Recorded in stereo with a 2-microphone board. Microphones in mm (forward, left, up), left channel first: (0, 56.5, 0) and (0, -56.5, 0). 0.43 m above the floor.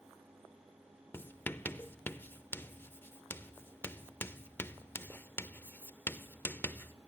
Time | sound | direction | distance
1.1 | writing | 20° left (ahead or behind) | 0.5 m